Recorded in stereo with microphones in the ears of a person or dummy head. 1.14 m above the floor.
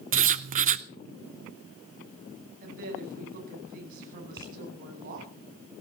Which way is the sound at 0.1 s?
40° right (ahead or behind).